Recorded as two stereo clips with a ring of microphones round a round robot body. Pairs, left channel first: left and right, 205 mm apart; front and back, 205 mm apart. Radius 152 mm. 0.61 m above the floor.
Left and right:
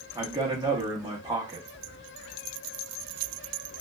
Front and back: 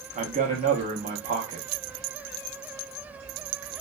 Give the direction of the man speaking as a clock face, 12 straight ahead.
5 o'clock.